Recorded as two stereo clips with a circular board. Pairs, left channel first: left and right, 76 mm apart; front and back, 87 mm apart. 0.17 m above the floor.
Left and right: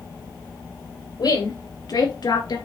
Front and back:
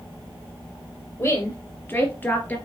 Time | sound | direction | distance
1.2 | a woman speaking | 65° left | 3.5 m